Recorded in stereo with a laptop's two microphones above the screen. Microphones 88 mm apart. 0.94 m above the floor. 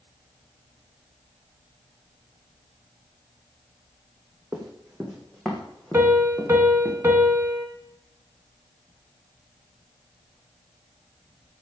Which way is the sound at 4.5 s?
15° right (ahead or behind).